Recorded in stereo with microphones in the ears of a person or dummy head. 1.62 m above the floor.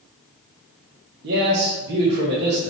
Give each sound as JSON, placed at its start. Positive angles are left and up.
{"t": 1.2, "sound": "a man speaking", "side_deg": -60, "distance_m": 0.6}